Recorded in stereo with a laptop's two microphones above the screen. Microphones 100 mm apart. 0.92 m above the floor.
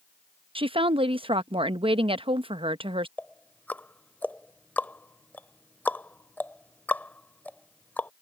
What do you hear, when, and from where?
0.6 s a woman speaking: 60° right (ahead or behind)
3.2 s ticking: 20° left (ahead or behind)